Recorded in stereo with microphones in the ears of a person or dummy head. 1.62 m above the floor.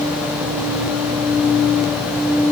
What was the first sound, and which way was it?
Only background noise.